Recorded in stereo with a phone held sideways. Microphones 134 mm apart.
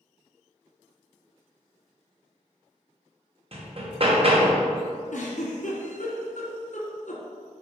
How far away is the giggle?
About 1.9 m.